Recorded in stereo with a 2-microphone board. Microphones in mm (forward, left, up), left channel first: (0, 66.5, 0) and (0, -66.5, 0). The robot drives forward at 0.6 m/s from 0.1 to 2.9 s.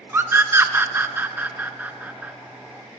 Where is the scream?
15° right (ahead or behind), 0.8 m; by 2.3 s 10° right (ahead or behind), 1.4 m.